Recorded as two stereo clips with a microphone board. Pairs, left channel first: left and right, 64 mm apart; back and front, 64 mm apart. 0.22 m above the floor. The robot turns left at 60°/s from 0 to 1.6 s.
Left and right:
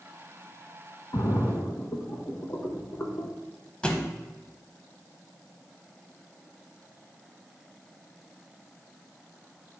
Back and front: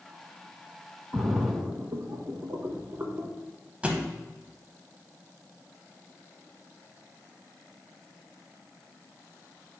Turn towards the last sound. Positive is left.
turn(degrees=35)